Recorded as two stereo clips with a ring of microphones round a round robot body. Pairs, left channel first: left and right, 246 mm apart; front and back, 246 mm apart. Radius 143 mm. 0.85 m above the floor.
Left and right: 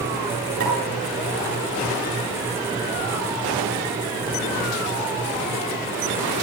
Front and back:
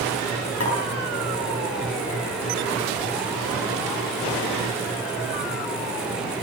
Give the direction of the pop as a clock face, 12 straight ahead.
1 o'clock.